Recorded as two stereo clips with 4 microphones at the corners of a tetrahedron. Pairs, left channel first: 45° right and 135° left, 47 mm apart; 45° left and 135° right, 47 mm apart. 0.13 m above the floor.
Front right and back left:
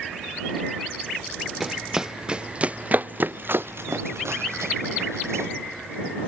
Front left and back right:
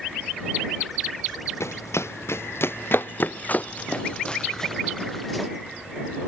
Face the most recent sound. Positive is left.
turn(degrees=135)